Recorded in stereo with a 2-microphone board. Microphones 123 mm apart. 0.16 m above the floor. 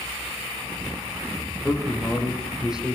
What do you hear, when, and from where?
1.6 s a man speaking: 5° right (ahead or behind), 7.5 m